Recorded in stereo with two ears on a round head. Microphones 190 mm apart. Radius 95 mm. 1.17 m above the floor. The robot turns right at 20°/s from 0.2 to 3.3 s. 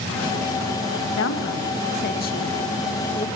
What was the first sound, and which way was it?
A woman speaking, 65° left (ahead or behind).